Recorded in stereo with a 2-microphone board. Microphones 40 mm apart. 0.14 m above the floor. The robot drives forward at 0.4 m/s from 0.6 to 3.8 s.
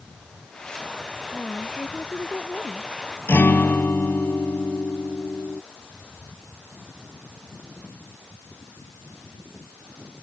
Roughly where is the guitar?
Left.